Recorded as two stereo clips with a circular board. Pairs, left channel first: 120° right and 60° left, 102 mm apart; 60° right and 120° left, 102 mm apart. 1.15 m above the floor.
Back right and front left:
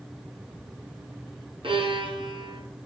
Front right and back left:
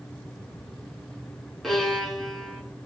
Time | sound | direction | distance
1.6 | a violin | 30° left | 4.5 m